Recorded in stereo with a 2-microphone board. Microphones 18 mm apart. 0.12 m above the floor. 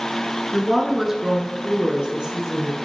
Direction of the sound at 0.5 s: Centre (ahead or behind).